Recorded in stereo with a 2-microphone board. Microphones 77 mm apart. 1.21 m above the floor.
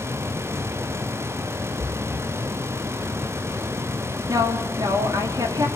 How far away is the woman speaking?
About 3 m.